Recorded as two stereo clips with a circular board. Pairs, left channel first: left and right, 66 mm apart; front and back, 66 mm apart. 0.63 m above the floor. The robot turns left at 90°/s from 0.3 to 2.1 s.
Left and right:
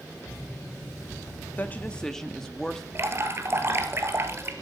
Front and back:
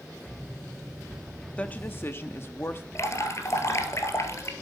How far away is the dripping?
About 1.7 m.